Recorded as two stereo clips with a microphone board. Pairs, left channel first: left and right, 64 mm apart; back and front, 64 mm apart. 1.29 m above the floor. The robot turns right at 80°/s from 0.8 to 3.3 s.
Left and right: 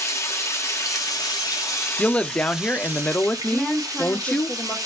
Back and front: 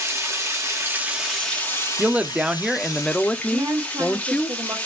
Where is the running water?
45° left, 1.2 m; by 4.9 s 115° right, 1.2 m.